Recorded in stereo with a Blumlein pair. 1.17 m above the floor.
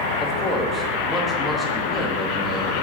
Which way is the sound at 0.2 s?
5° left.